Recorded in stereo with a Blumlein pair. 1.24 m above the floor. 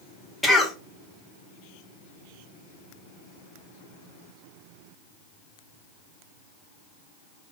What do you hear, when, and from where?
0.4 s a cough: 5° left, 0.8 m